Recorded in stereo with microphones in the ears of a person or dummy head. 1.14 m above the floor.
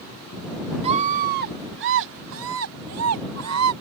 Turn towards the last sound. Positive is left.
turn(degrees=-85)